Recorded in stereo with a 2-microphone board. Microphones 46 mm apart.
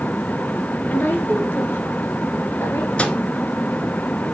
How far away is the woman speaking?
About 1.7 m.